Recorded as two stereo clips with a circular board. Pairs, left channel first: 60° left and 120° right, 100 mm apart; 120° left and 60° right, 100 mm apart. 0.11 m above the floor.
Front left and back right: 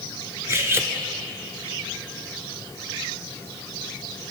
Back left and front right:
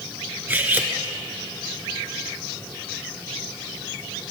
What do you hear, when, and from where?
0.5 s cutlery clinking: 105° right, 0.7 m